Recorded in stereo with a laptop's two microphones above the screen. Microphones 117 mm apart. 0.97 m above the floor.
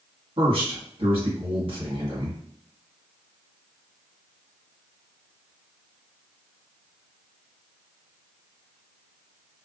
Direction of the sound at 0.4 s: 50° right (ahead or behind).